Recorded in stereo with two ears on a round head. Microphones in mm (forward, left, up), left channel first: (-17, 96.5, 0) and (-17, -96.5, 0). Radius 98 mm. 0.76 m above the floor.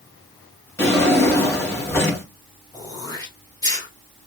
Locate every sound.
0.8 s a drawer: 10° left (ahead or behind), 2.5 m
2.7 s throat clearing: 20° left (ahead or behind), 1.6 m